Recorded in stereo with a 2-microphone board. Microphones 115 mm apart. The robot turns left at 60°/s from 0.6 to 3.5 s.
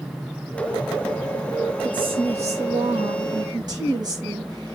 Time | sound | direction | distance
1.8 | a woman speaking | 40° right | 5.5 m